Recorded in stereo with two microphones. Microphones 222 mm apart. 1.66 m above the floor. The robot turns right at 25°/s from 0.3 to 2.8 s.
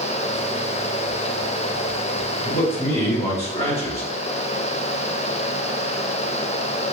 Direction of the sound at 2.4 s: 35° left (ahead or behind).